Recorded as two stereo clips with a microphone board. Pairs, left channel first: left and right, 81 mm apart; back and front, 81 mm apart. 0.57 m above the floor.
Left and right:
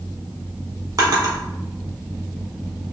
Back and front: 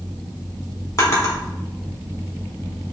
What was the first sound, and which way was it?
A drawer, 130° right.